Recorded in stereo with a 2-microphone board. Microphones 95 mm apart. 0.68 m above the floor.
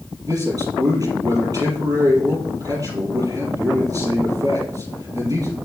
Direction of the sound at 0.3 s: 35° right (ahead or behind).